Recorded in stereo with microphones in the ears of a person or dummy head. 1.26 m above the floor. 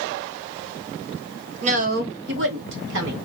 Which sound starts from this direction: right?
A woman speaking, at 1.6 s.